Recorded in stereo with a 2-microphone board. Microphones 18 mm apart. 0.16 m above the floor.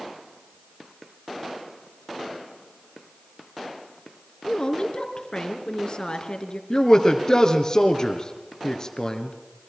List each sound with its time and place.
4.5 s a woman speaking: 45° left (ahead or behind), 2.5 m
6.7 s a man speaking: 40° left (ahead or behind), 2.5 m